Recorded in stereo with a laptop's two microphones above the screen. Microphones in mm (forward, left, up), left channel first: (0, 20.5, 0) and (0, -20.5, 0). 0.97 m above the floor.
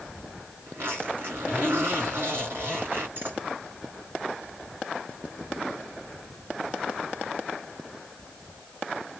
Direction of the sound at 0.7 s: 55° right (ahead or behind).